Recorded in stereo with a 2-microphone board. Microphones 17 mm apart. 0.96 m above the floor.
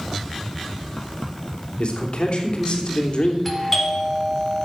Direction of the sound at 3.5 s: 10° left (ahead or behind).